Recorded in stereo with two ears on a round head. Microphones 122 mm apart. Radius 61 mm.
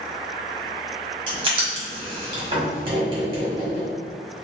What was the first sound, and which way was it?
Writing, 35° right (ahead or behind).